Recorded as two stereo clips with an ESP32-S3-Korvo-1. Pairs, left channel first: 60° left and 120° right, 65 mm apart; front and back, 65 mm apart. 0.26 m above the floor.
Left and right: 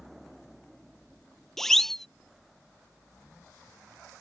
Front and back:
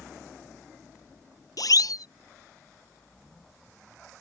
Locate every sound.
1.6 s a siren: 25° right